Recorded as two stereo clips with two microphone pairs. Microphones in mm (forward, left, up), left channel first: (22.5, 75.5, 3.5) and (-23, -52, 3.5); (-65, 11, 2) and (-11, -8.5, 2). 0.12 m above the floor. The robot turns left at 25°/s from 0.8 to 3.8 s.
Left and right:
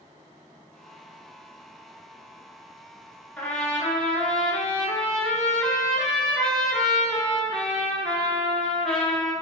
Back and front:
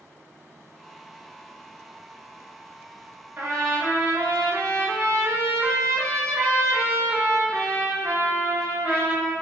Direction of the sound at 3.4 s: Straight ahead.